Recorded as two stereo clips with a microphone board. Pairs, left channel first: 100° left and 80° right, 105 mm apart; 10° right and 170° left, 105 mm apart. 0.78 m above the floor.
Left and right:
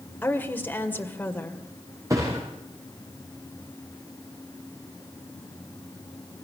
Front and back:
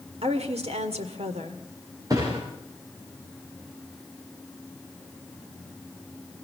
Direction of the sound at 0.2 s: 170° left.